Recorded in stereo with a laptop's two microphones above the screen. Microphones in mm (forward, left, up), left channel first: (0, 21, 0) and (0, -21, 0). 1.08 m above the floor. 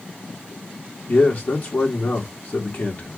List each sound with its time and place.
1.1 s a man speaking: 45° left (ahead or behind), 2 m